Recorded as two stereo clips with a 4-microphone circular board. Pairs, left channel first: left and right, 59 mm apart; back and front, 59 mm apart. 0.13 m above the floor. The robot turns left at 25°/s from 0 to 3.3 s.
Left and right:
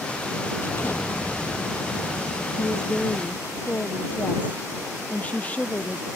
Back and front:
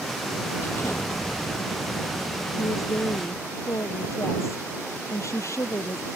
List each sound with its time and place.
0.6 s an explosion: 140° left; by 3.6 s 75° left
2.6 s a woman speaking: 170° left; by 6.1 s 155° left